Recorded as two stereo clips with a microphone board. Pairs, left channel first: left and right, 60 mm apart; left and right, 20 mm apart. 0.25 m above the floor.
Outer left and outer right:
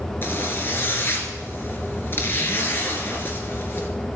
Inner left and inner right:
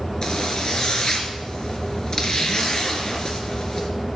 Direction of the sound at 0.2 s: 35° left (ahead or behind).